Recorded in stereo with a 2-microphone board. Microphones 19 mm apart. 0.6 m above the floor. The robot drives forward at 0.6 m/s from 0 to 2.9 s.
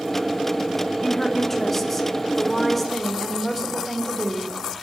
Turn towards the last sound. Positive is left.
turn(degrees=10)  # may be behind; listen again after turning